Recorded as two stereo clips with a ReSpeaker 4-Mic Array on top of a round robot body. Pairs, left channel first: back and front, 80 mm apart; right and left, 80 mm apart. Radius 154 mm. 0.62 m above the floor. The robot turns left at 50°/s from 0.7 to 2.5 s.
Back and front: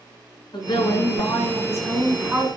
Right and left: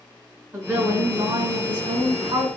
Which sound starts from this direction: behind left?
A woman speaking, at 0.5 s.